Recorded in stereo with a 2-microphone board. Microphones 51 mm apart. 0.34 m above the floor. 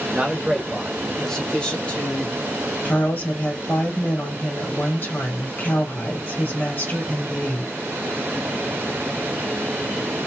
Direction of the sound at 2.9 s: 40° left (ahead or behind).